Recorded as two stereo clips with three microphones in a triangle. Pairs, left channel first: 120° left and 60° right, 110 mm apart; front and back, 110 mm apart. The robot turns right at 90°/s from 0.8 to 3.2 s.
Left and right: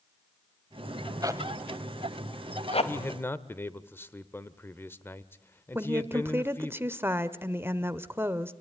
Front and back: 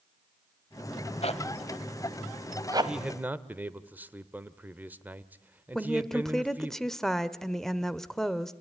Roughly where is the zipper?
Ahead.